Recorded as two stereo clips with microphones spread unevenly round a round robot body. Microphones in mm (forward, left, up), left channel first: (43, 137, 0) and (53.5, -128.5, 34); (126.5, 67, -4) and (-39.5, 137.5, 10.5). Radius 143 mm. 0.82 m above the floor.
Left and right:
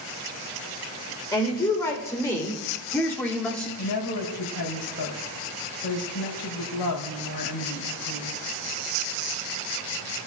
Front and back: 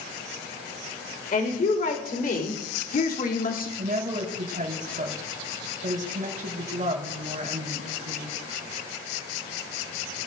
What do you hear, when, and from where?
1.3 s a woman speaking: 15° left, 3.5 m; by 3.7 s 10° left, 2.5 m
3.8 s a woman speaking: 115° left, 4 m